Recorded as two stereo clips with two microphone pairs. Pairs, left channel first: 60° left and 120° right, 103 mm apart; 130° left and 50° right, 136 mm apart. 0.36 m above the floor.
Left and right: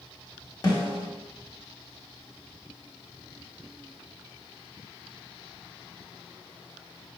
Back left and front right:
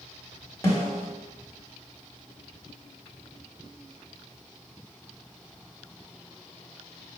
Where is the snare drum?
75° left, 1.5 m.